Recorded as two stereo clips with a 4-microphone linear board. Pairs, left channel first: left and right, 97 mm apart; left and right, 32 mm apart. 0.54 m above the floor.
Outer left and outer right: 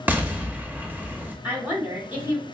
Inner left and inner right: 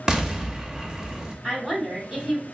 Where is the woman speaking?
20° right (ahead or behind), 1.4 m.